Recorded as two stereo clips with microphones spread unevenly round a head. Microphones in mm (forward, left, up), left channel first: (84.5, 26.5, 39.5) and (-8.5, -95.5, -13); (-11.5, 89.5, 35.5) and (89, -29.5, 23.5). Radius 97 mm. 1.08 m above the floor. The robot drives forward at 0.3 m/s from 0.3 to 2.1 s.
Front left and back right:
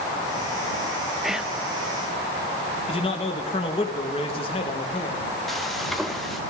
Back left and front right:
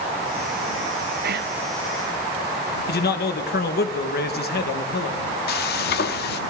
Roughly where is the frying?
Behind left.